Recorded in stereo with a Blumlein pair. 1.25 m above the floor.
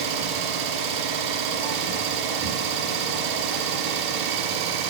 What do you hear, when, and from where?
0.0 s an engine running: 40° right, 3.5 m